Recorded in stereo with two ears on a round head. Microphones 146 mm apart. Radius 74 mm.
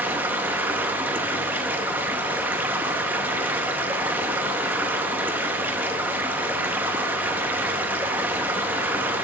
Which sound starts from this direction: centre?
Running water, at 0.0 s.